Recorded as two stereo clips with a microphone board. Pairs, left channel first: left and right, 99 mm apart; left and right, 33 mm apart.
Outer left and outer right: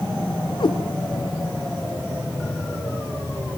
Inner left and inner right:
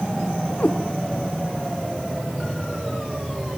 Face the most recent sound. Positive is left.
turn(degrees=50)  # may be behind; listen again after turning